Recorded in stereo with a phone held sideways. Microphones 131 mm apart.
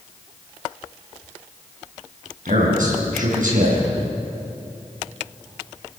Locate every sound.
2.5 s a man speaking: 85° right, 7 m